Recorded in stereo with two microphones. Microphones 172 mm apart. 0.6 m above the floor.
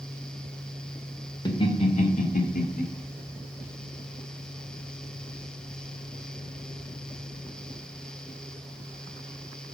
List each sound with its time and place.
1.4 s laughter: 25° left (ahead or behind), 2 m; by 2.8 s 60° left (ahead or behind), 1.9 m